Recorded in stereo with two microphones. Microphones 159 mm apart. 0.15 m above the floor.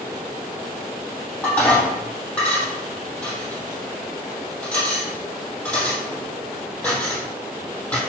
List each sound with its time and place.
1.4 s dishes clattering: 10° left (ahead or behind), 3.5 m